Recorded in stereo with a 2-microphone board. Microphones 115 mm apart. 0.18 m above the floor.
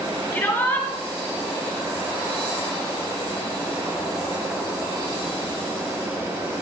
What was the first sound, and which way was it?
A shout, 20° left (ahead or behind).